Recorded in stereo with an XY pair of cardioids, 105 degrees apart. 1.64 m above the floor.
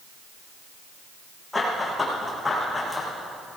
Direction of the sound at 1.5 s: 20° left.